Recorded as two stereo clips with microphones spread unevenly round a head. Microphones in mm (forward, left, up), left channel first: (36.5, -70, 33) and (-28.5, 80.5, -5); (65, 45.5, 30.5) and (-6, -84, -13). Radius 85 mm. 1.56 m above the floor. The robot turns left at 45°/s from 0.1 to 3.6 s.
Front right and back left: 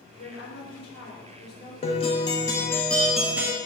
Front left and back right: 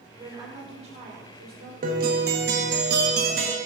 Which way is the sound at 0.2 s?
40° right.